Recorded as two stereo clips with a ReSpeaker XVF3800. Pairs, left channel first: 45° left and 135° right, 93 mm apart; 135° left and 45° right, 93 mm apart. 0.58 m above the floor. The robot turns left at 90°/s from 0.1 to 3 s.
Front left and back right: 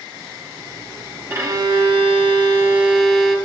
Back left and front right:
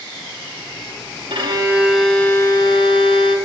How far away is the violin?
About 1.1 m.